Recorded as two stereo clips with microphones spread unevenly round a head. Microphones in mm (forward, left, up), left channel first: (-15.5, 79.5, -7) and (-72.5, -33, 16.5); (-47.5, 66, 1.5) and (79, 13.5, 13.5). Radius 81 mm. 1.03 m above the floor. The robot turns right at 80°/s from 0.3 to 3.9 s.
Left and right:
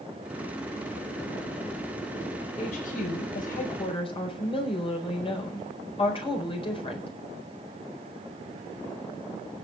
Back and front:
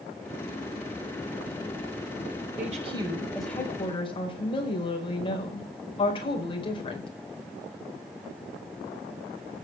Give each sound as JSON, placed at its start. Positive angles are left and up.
{"t": 2.6, "sound": "a woman speaking", "azimuth_deg": 0, "distance_m": 4.5}